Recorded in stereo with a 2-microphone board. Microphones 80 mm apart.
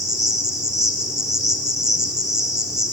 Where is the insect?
55° right (ahead or behind), 2 m.